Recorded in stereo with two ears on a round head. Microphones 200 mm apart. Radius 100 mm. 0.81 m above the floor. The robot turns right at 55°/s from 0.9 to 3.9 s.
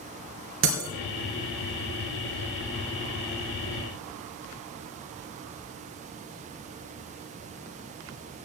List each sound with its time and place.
0.6 s breaking glass: 60° right (ahead or behind), 3 m